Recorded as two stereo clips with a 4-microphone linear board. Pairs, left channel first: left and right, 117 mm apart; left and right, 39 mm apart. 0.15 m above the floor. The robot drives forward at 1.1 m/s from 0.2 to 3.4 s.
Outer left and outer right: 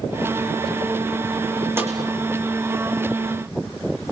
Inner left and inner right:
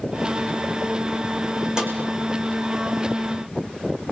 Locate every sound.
1.8 s a snare drum: 20° right (ahead or behind), 4 m